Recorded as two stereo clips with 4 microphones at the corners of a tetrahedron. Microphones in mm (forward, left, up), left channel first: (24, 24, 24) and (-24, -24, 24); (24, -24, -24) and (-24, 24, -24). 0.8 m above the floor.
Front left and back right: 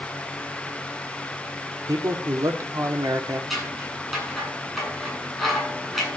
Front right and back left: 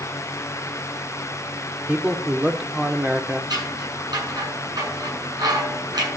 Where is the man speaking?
155° right, 2 m.